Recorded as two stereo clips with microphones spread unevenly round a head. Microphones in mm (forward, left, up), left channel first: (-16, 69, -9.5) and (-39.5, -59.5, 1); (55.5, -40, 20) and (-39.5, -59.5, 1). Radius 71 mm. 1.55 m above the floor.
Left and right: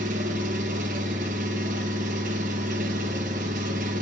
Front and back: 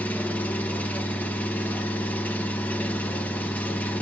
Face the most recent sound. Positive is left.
turn(degrees=-60)